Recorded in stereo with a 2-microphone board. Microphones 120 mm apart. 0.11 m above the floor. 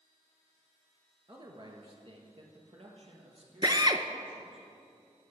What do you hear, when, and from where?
1.3 s a man speaking: 35° right (ahead or behind), 1.4 m; by 4.6 s 60° right (ahead or behind), 3 m
3.6 s a drill: 40° right (ahead or behind), 0.5 m